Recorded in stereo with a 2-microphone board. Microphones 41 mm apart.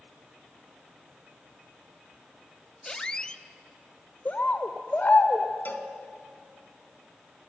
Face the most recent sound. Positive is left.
turn(degrees=55)  # may be behind; listen again after turning